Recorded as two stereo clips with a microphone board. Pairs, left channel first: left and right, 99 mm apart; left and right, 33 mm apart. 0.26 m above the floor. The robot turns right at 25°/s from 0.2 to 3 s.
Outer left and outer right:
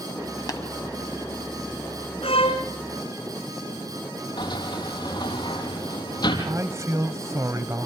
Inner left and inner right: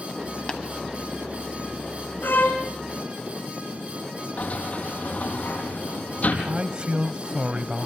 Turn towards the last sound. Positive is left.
turn(degrees=-35)  # may be behind; listen again after turning